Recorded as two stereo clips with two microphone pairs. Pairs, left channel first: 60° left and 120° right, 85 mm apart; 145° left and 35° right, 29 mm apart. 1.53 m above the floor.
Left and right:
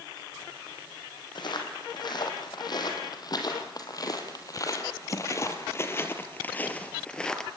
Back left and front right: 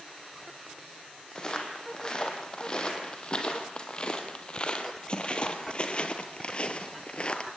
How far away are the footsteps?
About 4 m.